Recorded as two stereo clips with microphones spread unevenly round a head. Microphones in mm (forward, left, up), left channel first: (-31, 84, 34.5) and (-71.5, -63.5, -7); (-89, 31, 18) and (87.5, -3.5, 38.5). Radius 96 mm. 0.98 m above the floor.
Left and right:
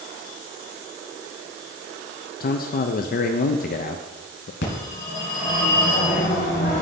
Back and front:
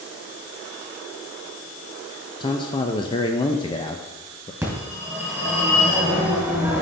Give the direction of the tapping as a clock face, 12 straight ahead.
No tapping in this recording.